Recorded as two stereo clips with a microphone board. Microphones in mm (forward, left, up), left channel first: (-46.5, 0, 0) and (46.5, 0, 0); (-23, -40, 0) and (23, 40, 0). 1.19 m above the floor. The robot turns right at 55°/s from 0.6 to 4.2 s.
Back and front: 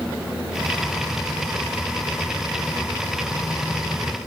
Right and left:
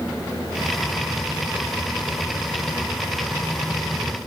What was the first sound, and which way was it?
Only background noise.